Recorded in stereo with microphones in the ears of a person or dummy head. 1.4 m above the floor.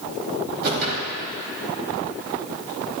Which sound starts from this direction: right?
A whoosh, at 0.6 s.